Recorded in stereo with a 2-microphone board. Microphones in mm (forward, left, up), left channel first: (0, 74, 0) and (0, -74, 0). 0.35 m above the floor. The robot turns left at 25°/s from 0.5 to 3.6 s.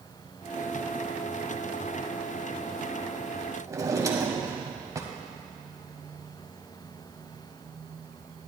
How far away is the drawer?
About 1.0 m.